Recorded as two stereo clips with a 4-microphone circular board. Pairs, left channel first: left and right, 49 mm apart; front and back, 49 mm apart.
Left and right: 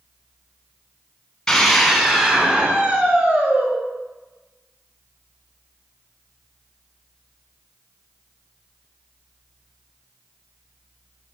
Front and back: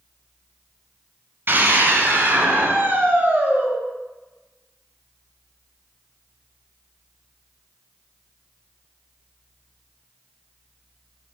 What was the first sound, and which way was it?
A scream, 170° left.